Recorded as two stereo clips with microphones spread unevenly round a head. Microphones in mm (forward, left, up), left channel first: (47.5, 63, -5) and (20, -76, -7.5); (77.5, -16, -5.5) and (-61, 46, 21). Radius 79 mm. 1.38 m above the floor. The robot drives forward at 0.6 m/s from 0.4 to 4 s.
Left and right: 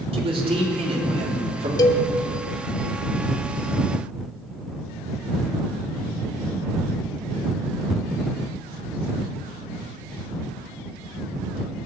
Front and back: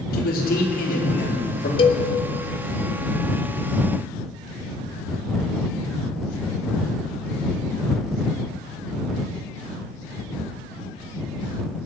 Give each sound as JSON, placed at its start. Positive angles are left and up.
{"t": 0.1, "sound": "a man speaking", "azimuth_deg": -55, "distance_m": 4.5}
{"t": 1.8, "sound": "a cowbell", "azimuth_deg": 25, "distance_m": 1.6}